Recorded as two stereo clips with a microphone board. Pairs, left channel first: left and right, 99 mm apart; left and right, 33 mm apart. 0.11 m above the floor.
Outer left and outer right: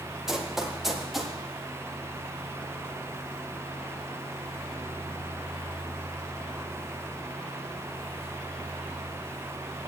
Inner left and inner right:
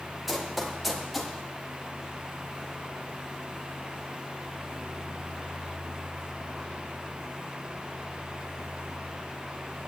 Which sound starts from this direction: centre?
Running footsteps, at 0.3 s.